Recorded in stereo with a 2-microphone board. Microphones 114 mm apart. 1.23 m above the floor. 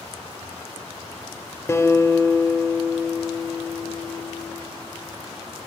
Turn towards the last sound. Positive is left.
turn(degrees=25)  # may be behind; listen again after turning